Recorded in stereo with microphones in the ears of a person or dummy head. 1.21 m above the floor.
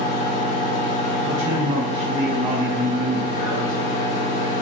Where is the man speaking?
30° right (ahead or behind), 1.1 m.